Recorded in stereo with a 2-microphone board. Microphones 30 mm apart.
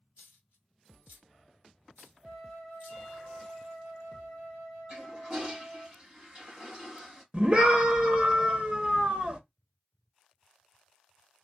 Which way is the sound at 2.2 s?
45° right (ahead or behind).